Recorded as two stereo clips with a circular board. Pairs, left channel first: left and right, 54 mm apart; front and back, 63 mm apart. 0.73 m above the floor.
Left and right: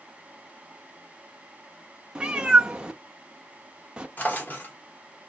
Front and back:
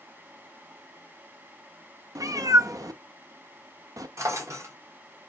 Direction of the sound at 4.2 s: 145° left.